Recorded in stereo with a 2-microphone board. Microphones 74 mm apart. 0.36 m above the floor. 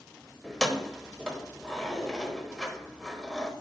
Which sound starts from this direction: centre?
Keys jangling, at 0.4 s.